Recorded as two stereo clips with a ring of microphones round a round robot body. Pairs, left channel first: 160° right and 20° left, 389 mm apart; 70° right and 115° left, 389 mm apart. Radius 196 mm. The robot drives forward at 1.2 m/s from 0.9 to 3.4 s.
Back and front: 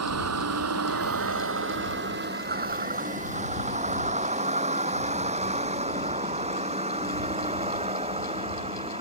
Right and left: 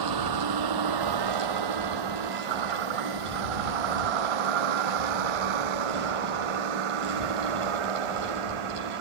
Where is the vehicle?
75° left; by 9.0 s 100° left.